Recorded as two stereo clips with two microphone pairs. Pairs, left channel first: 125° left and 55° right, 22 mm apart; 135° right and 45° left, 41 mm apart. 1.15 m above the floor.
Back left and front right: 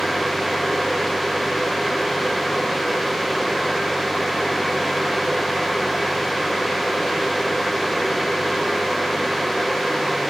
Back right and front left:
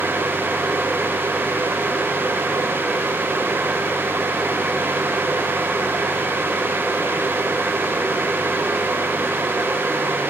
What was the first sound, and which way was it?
Only background noise.